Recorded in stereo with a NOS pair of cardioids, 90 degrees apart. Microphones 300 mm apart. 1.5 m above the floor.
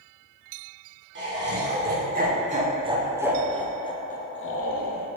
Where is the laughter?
40° right, 1.7 m; by 5.1 s 70° left, 0.8 m.